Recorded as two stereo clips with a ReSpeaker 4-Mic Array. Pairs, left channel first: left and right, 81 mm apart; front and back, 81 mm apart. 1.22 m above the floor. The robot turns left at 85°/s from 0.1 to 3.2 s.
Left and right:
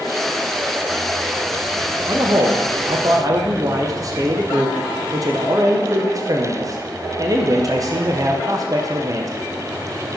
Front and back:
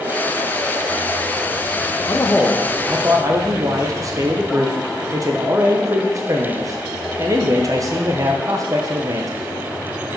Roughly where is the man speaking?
Ahead right.